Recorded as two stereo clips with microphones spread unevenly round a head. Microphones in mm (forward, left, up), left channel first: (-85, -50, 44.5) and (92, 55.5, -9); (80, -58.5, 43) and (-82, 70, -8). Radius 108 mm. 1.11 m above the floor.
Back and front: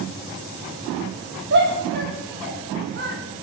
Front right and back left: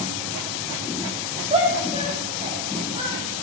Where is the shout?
75° left, 4.5 m.